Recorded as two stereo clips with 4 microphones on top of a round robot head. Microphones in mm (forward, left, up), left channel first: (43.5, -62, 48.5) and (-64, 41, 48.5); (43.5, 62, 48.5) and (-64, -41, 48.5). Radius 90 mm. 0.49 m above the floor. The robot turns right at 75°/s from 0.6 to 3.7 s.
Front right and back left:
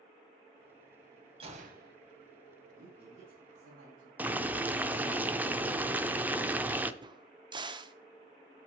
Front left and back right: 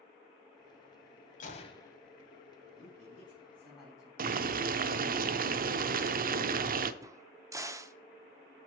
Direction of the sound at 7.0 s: 170° left.